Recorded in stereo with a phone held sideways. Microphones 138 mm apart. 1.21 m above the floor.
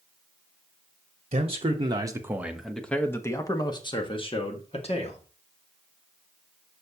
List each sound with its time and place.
1.3 s a man speaking: 50° right (ahead or behind), 1.2 m; by 5.2 s 50° left (ahead or behind), 2 m